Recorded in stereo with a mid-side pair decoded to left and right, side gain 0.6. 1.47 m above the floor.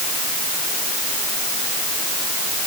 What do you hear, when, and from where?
Only background noise.